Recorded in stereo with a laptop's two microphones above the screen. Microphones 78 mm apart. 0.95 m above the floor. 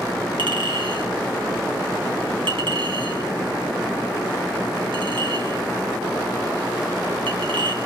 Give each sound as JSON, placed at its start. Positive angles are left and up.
{"t": 0.4, "sound": "a clink", "side_deg": -90, "distance_m": 5.0}